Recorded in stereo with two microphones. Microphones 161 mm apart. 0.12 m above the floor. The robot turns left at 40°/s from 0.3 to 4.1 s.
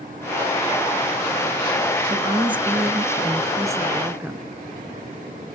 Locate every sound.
2.1 s a woman speaking: 75° right, 1.2 m; by 4.5 s 155° right, 1.2 m